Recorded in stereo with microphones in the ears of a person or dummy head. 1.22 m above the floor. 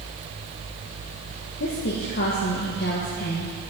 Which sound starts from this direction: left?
A woman speaking, at 1.6 s.